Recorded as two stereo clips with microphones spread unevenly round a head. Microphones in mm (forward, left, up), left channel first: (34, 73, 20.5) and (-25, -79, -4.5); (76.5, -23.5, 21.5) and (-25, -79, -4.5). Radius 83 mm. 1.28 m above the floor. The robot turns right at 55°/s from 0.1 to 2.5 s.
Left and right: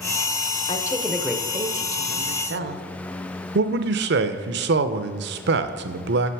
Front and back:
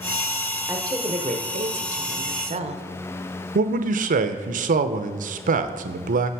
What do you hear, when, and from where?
0.7 s a woman speaking: 135° left, 0.6 m; by 2.8 s 125° right, 0.6 m
3.5 s a man speaking: 140° right, 0.5 m